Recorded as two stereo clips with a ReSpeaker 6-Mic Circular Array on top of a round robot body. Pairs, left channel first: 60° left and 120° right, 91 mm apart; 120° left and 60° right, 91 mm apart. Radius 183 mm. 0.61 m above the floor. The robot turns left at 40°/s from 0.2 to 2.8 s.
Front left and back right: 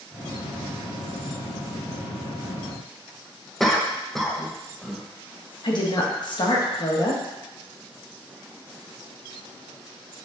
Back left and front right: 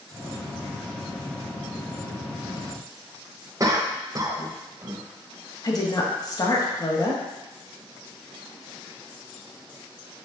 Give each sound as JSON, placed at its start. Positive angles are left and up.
{"t": 3.6, "sound": "a cough", "azimuth_deg": -30, "distance_m": 1.4}
{"t": 5.6, "sound": "a woman speaking", "azimuth_deg": 80, "distance_m": 1.9}